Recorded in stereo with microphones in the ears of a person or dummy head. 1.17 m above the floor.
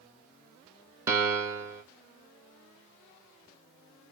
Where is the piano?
15° right (ahead or behind), 0.6 m.